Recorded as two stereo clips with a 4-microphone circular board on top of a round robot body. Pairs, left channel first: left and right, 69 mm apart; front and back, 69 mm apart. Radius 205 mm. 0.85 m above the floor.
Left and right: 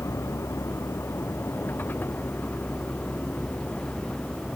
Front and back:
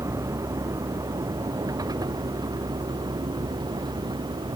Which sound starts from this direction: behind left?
A vehicle, at 0.0 s.